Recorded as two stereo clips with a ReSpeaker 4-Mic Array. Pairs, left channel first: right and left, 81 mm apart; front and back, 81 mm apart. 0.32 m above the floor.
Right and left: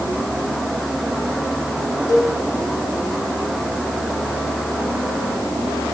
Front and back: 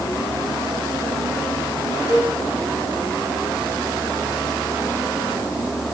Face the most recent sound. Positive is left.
turn(degrees=-50)